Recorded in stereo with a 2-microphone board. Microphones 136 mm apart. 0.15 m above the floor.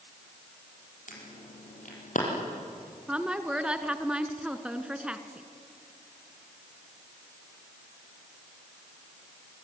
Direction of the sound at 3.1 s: 10° right (ahead or behind).